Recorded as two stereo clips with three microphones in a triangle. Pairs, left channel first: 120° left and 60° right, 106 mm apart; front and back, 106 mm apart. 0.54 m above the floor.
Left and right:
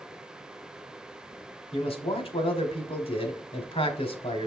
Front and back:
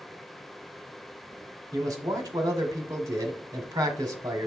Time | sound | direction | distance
1.7 | a man speaking | 130° left | 1.5 m